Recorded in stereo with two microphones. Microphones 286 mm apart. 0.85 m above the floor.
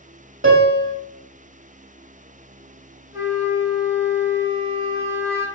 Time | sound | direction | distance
0.4 | a piano | 45° right (ahead or behind) | 0.9 m
3.1 | a flute | 35° left (ahead or behind) | 0.9 m